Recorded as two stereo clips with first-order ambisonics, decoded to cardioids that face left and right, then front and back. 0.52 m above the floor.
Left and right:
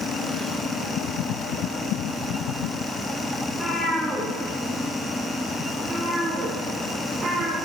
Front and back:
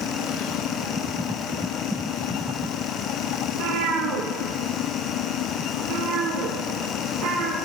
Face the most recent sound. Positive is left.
turn(degrees=-150)